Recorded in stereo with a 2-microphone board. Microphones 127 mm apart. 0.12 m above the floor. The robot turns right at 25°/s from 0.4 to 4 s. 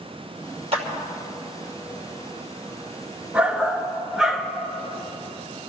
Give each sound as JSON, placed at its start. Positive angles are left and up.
{"t": 0.7, "sound": "a clap", "side_deg": -50, "distance_m": 3.0}
{"t": 3.3, "sound": "a shout", "side_deg": -10, "distance_m": 1.4}